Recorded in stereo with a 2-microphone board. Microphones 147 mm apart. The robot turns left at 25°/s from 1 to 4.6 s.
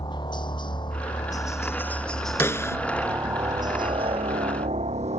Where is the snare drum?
15° left (ahead or behind); by 2.8 s 20° left (ahead or behind).